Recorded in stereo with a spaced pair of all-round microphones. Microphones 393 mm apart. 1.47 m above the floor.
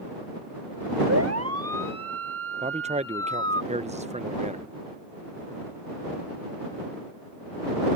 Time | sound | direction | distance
1.1 | a siren | 40° right (ahead or behind) | ?
2.6 | a man speaking | 15° right (ahead or behind) | ?